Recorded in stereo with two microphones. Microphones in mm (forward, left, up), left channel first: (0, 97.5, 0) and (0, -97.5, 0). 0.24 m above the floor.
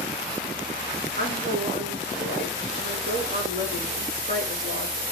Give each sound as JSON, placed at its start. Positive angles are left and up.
{"t": 1.2, "sound": "a woman speaking", "side_deg": -50, "distance_m": 3.5}